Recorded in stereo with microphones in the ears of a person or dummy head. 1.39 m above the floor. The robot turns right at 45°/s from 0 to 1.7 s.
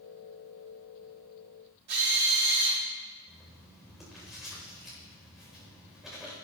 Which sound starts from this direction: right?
A drill, at 1.9 s.